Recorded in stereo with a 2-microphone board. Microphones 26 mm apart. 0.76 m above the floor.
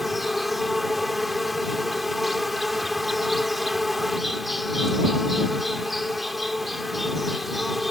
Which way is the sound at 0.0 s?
5° right (ahead or behind).